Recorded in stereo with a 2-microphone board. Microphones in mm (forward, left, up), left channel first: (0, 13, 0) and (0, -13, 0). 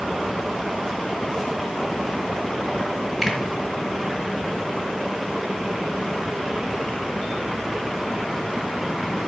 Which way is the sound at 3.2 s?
5° left (ahead or behind).